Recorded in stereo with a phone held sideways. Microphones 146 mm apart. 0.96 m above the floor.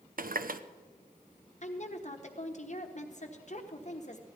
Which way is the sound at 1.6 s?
55° left (ahead or behind).